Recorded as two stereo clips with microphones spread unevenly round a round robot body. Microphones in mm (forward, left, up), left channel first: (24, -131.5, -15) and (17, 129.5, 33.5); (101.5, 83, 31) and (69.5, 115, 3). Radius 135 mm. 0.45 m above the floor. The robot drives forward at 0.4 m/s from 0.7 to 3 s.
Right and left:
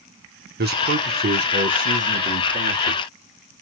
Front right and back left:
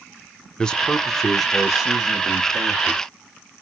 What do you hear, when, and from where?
0.6 s a man speaking: 90° left, 0.7 m; by 3.0 s 165° left, 1.2 m